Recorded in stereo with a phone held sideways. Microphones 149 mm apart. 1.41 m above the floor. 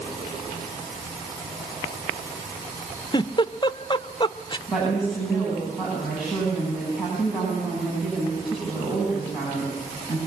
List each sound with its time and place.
3.1 s a giggle: 30° left (ahead or behind), 0.6 m
4.7 s a woman speaking: 5° right (ahead or behind), 9.5 m